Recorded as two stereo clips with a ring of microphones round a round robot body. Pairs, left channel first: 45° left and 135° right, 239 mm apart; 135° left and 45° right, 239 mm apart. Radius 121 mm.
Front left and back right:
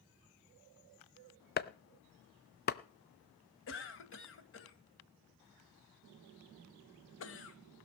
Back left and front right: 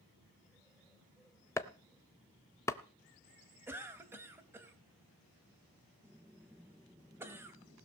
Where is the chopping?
60° left, 0.6 m.